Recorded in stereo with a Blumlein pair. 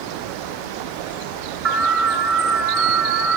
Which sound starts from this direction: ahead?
An alarm, at 1.6 s.